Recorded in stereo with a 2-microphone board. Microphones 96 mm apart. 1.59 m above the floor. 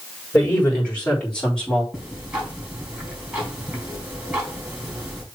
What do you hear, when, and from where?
0.3 s a man speaking: 20° left (ahead or behind), 4.5 m; by 1.8 s 5° left (ahead or behind), 4 m
1.9 s ticking: 10° right (ahead or behind), 4 m